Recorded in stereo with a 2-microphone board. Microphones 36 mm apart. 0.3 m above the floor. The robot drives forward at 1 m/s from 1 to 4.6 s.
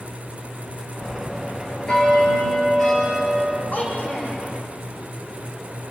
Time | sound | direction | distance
1.0 | a bell | 25° left (ahead or behind) | 2.5 m
3.7 | a child speaking | 60° left (ahead or behind) | 7.5 m